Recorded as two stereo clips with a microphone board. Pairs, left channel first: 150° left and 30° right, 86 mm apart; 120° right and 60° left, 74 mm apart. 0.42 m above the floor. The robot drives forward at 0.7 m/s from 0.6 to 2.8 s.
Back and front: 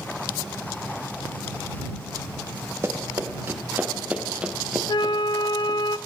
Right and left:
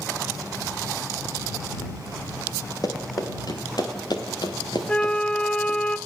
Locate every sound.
2.8 s running footsteps: 90° right, 5 m; by 5.8 s 125° right, 4.5 m
4.9 s a flute: 165° left, 0.8 m